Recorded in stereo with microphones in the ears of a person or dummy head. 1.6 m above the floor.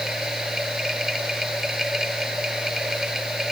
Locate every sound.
0.0 s a machine running: centre (ahead or behind)